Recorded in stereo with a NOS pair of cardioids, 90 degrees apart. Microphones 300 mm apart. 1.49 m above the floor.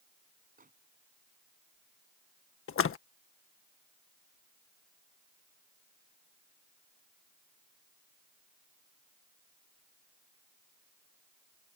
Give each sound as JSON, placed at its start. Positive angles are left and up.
{"t": 0.6, "sound": "a microwave", "azimuth_deg": -25}
{"t": 2.7, "sound": "a splash", "azimuth_deg": 45}